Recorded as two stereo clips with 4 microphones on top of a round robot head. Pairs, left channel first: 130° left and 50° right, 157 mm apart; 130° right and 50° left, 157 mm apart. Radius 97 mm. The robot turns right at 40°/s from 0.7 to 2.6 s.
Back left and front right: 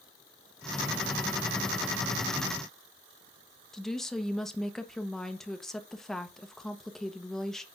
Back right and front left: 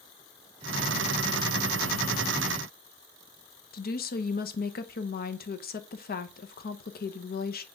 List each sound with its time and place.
3.7 s a woman speaking: 145° right, 1.0 m